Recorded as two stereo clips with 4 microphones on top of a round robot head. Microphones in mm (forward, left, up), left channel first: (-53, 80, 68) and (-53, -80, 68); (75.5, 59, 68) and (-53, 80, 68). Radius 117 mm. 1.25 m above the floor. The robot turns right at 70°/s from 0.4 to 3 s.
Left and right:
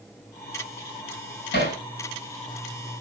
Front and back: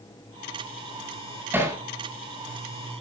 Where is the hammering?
95° left, 8.5 m; by 1.8 s 115° left, 8.5 m.